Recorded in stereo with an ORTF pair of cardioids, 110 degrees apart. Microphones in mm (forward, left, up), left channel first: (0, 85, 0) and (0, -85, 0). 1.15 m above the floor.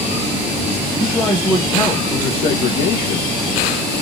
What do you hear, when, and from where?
1.0 s a man speaking: 5° left, 1.4 m; by 3.3 s 60° left, 1.5 m